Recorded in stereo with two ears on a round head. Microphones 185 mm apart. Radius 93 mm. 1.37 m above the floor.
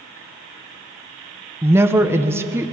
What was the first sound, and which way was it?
A woman speaking, 10° right (ahead or behind).